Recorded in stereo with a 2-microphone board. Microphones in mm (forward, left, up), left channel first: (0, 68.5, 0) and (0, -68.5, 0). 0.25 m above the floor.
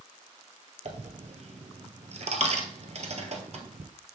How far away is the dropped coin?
About 1.1 m.